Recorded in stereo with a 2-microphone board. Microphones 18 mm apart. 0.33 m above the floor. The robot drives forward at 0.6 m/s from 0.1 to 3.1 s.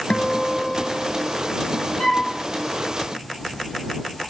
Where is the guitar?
80° left, 0.5 m; by 1.9 s 25° left (ahead or behind), 1.3 m.